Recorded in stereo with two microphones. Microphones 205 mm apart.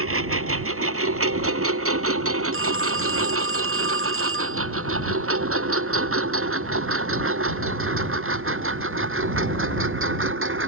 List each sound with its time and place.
0.0 s a lawn mower: 80° right; by 10.7 s 65° right (ahead or behind)
2.5 s a phone ringing: 75° right (ahead or behind)